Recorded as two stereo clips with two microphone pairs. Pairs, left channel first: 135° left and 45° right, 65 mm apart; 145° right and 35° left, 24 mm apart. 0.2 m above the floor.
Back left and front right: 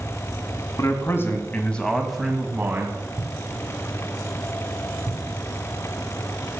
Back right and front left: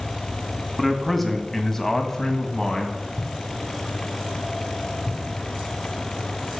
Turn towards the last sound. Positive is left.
turn(degrees=-25)